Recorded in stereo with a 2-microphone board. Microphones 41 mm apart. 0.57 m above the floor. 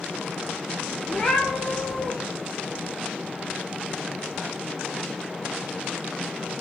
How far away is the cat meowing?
About 1.9 m.